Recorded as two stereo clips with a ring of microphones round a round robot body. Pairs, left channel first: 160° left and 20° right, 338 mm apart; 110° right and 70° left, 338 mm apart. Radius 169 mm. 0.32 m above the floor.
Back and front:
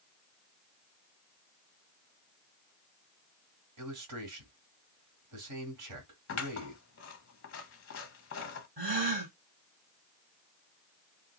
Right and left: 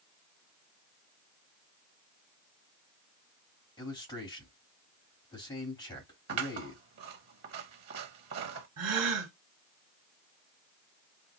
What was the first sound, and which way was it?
A man speaking, 40° right.